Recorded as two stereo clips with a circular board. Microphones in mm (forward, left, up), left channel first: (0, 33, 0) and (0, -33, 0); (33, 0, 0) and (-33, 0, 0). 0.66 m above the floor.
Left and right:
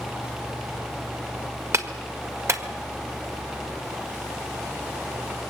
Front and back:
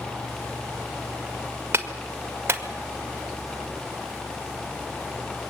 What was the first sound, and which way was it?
A clap, 130° right.